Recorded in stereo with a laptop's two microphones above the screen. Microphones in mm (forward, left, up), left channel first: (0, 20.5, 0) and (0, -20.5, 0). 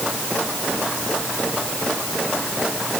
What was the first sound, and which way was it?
Only background noise.